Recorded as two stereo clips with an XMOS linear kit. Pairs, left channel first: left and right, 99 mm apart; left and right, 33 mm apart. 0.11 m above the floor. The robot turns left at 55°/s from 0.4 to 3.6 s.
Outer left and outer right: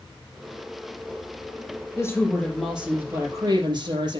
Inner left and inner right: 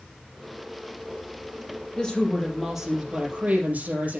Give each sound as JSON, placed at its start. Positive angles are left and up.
{"t": 2.0, "sound": "a woman speaking", "azimuth_deg": 35, "distance_m": 3.5}